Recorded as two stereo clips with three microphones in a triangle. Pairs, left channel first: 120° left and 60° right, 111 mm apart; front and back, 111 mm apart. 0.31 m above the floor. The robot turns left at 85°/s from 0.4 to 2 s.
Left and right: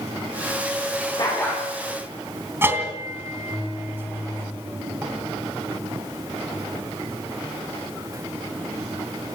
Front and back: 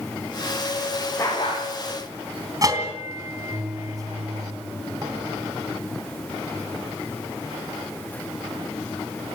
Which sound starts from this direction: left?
A dog barking, at 1.2 s.